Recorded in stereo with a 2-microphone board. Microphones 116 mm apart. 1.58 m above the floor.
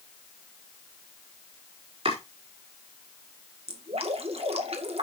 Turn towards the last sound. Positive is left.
turn(degrees=-55)  # may be behind; listen again after turning